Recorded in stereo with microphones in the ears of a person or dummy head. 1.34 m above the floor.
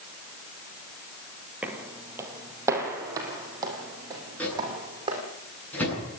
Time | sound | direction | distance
1.6 | footsteps | 5° right (ahead or behind) | 2 m
4.4 | a microwave | 10° left (ahead or behind) | 9.5 m